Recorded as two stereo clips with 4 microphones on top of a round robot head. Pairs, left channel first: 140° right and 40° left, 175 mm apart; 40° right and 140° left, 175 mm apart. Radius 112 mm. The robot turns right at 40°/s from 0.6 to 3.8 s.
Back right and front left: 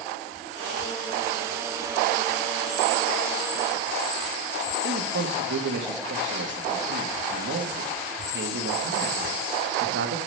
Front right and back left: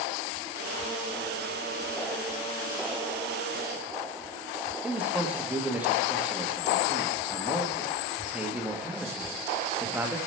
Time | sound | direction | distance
4.8 | a man speaking | 55° left | 1.2 m